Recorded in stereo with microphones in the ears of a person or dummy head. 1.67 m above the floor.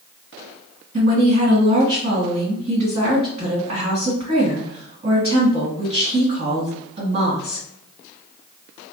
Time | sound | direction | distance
0.9 | a woman speaking | 50° right (ahead or behind) | 1.9 m